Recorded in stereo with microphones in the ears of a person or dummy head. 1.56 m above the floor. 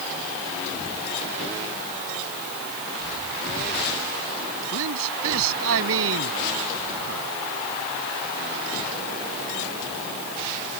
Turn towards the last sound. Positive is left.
turn(degrees=-80)